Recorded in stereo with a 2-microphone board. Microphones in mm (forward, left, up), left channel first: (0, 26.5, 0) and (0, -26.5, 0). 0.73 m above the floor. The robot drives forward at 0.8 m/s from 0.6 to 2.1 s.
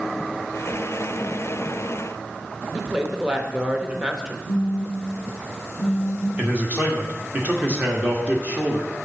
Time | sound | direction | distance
2.7 | a woman speaking | 15° right (ahead or behind) | 0.8 m
4.5 | a phone buzzing | 45° right (ahead or behind) | 2.5 m
6.4 | a man speaking | 25° right (ahead or behind) | 1.2 m